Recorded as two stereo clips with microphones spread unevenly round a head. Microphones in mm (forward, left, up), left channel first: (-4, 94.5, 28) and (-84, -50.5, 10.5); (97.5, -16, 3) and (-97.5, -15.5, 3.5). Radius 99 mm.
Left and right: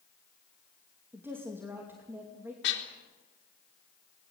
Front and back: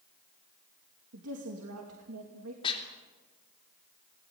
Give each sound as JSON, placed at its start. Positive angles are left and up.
{"t": 1.1, "sound": "a woman speaking", "azimuth_deg": 165, "distance_m": 2.5}
{"t": 2.6, "sound": "dishes clattering", "azimuth_deg": 65, "distance_m": 3.0}